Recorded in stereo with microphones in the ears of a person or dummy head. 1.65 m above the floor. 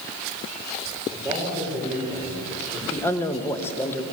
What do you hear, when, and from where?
1.1 s a man speaking: 20° right (ahead or behind), 6 m
2.9 s a man speaking: 15° left (ahead or behind), 2.0 m